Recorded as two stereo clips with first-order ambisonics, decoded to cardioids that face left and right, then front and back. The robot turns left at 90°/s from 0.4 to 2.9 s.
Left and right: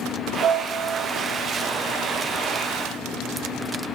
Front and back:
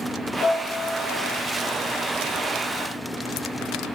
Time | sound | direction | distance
0.4 | a piano | 50° right | 1.0 m